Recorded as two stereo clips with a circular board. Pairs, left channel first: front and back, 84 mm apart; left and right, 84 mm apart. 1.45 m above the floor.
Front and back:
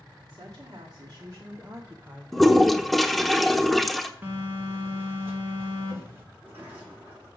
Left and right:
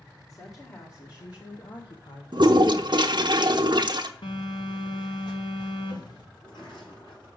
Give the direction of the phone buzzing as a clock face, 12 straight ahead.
8 o'clock.